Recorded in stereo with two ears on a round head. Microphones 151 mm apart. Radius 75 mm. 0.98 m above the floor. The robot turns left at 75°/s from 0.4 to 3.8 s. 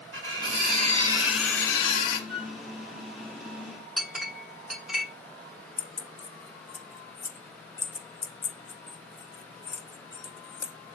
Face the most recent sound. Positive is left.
turn(degrees=15)  # may be behind; listen again after turning